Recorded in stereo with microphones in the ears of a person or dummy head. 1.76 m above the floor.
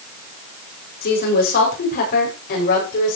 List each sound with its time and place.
1.0 s a woman speaking: 50° left (ahead or behind), 6.5 m